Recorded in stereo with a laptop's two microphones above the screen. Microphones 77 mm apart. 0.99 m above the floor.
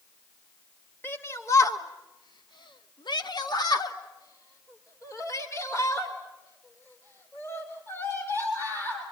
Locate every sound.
1.0 s a shout: 30° left (ahead or behind), 1.8 m